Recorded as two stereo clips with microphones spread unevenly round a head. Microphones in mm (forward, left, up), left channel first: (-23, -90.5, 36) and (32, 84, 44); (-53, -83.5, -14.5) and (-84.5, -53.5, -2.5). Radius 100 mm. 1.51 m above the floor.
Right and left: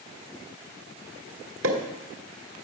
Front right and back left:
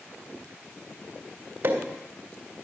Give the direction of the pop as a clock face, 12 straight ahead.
9 o'clock.